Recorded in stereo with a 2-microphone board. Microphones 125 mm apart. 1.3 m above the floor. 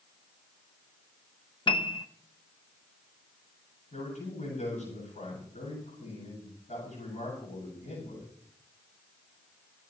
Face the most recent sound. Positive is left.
turn(degrees=70)  # may be behind; listen again after turning